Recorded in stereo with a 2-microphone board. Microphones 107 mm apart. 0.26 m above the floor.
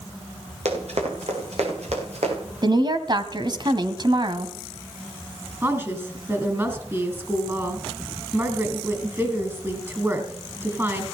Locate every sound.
0.7 s running footsteps: 90° right, 6.5 m; by 2.4 s 80° right, 7 m
2.6 s a woman speaking: 45° right (ahead or behind), 1.8 m
5.6 s a woman speaking: 25° right (ahead or behind), 4 m